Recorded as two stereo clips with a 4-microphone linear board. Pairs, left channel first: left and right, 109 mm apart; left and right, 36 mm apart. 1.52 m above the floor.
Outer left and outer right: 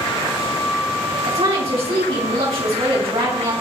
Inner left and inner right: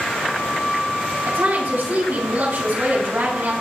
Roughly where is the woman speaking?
Right.